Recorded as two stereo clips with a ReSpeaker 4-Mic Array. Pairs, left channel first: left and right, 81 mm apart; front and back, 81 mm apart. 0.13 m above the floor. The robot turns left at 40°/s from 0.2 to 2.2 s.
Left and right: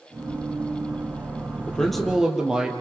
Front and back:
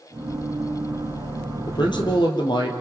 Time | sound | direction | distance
1.7 | a man speaking | 15° left | 2.5 m